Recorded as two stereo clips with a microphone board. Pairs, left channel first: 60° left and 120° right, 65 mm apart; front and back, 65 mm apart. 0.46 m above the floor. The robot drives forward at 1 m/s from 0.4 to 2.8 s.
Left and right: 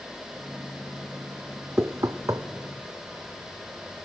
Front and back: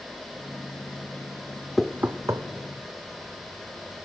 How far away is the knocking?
About 0.6 m.